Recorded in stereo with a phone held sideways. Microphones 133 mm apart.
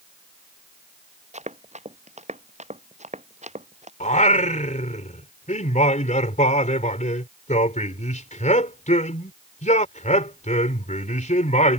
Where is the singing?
65° left (ahead or behind).